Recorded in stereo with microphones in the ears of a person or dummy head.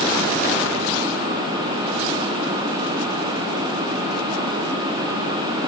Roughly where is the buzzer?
No buzzer in this recording.